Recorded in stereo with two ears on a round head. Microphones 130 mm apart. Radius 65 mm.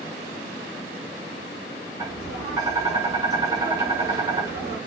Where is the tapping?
25° right (ahead or behind), 1.3 m.